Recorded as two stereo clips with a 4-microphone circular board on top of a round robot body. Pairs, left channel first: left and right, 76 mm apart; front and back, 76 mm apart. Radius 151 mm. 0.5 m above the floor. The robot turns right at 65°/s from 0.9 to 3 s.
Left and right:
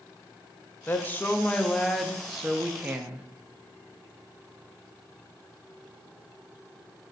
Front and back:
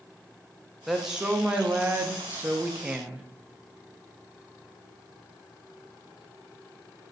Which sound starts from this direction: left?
A woman speaking, at 0.9 s.